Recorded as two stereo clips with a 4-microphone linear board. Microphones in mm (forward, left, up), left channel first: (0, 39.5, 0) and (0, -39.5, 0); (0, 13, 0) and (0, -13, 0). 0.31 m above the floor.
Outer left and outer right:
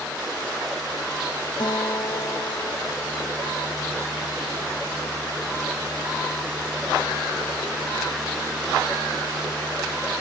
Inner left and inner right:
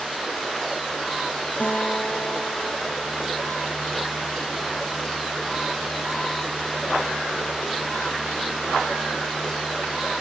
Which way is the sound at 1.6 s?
65° left (ahead or behind).